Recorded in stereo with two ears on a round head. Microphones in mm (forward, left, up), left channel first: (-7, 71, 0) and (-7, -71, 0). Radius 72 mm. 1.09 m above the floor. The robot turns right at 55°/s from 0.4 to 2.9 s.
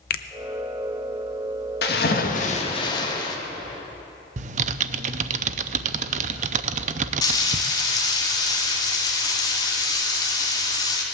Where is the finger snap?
65° left (ahead or behind), 0.7 m.